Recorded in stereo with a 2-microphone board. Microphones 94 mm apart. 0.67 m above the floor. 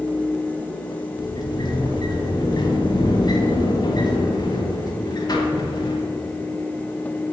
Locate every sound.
1.2 s a sliding door: 45° left (ahead or behind), 1.7 m